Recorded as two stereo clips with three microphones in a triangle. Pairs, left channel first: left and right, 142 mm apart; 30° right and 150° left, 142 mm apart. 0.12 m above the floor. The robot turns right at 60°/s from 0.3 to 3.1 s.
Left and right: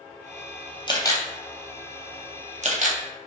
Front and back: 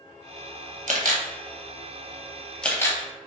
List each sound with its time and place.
0.9 s a camera shutter: 140° left, 0.6 m; by 3.0 s 95° right, 0.6 m